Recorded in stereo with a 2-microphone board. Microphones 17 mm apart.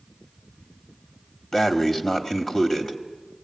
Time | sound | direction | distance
1.5 | breathing | 25° left (ahead or behind) | 1.4 m